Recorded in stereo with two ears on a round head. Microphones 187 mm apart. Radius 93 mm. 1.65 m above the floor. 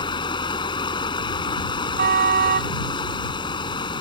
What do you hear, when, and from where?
0.0 s running water: 25° left (ahead or behind)
2.0 s a car horn: 45° right (ahead or behind)